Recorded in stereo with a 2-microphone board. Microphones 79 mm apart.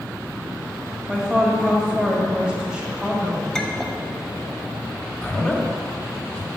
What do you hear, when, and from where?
1.1 s a woman speaking: 15° right (ahead or behind), 1.5 m
3.5 s a clink: 10° left (ahead or behind), 0.8 m
5.2 s a man speaking: 20° left (ahead or behind), 1.3 m